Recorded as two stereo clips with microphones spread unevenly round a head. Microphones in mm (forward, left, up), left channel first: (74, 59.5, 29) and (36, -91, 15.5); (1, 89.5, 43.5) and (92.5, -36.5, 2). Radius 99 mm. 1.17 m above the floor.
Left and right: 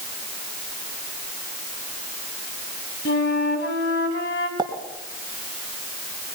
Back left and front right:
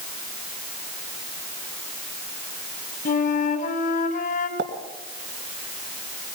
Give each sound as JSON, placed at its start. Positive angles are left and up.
{"t": 3.0, "sound": "a flute", "azimuth_deg": 100, "distance_m": 3.0}
{"t": 4.6, "sound": "a pop", "azimuth_deg": -40, "distance_m": 2.5}